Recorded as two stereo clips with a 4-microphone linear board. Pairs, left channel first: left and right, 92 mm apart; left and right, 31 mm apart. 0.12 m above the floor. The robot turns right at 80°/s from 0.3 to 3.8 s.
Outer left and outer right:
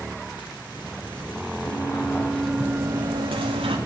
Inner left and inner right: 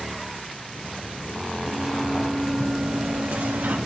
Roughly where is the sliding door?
Behind left.